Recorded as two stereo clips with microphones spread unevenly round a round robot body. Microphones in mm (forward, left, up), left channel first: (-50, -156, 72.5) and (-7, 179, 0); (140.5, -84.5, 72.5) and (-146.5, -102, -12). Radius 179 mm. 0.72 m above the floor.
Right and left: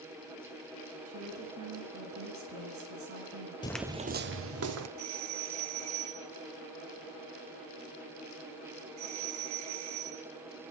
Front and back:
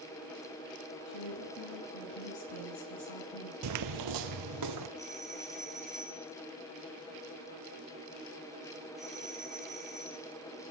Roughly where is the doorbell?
Left.